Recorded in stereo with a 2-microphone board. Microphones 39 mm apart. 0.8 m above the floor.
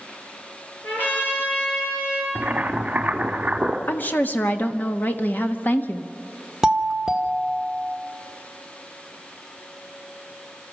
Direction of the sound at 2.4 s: 40° right (ahead or behind).